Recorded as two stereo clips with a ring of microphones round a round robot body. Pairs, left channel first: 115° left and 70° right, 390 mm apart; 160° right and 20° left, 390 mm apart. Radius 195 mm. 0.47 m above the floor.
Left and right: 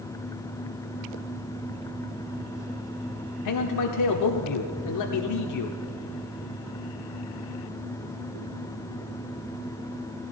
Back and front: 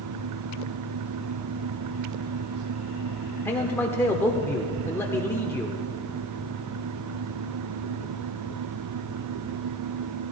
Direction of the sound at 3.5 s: 120° left.